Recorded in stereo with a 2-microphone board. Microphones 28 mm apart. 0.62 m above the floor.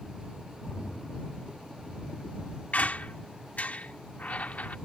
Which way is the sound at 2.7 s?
65° left (ahead or behind).